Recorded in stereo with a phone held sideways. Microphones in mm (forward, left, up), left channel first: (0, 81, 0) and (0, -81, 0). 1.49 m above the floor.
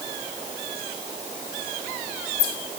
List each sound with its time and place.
Only background noise.